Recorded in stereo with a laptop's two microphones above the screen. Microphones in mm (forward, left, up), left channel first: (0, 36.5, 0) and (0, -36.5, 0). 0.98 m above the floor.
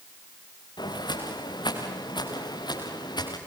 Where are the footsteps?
80° left, 5.5 m; by 3.4 s 75° left (ahead or behind), 7 m.